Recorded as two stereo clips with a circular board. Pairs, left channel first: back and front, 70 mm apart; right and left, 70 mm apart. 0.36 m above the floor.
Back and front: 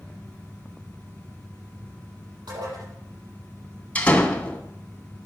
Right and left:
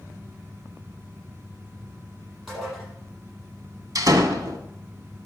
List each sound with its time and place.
2.5 s dishes clattering: straight ahead, 7.5 m
4.0 s a door slam: 110° left, 1.6 m